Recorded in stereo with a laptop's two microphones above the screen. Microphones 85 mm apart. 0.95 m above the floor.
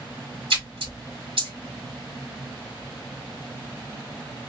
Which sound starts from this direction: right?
A splash, at 0.5 s.